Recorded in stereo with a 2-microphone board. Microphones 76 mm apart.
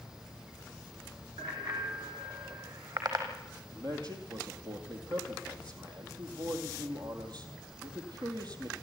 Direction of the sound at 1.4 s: 75° right (ahead or behind).